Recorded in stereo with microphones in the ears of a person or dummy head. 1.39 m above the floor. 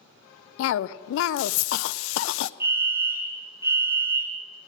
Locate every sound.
0.6 s a cough: 80° left, 0.6 m
2.6 s a fire alarm: 15° right (ahead or behind), 1.6 m